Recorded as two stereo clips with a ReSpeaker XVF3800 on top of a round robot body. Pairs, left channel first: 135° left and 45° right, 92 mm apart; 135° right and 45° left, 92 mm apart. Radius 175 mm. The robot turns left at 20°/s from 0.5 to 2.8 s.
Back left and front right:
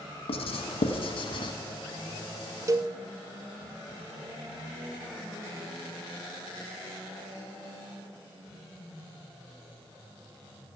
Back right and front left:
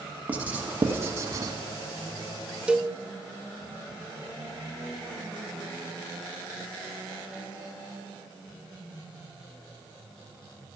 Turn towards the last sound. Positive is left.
turn(degrees=-30)